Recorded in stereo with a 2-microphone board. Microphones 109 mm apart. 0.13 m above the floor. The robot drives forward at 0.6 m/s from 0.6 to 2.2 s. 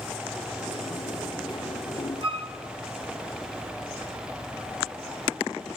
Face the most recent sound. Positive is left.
turn(degrees=-55)  # may be behind; listen again after turning